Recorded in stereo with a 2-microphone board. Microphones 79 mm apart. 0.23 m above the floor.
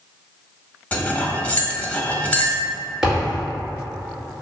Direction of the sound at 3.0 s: 5° right (ahead or behind).